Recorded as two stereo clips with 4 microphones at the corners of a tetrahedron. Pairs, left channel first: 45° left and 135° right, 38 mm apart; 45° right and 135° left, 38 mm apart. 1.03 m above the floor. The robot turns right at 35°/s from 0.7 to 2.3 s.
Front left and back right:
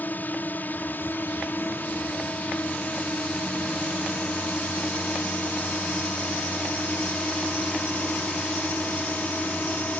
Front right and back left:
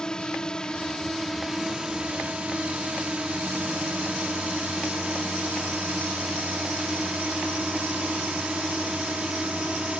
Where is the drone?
20° left; by 10.0 s 75° left.